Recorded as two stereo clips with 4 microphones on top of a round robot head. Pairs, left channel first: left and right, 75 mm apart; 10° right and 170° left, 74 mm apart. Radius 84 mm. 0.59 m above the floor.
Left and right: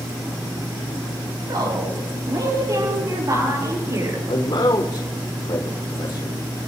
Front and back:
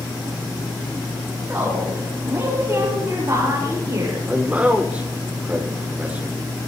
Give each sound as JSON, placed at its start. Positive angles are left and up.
{"t": 1.5, "sound": "a woman speaking", "azimuth_deg": -120, "distance_m": 7.0}
{"t": 4.3, "sound": "a man speaking", "azimuth_deg": 100, "distance_m": 2.5}